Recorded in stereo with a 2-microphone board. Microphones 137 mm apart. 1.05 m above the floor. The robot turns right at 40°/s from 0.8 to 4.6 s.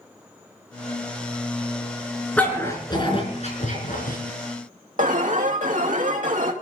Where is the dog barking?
10° left (ahead or behind), 4.5 m; by 4.2 s 80° left, 4.5 m.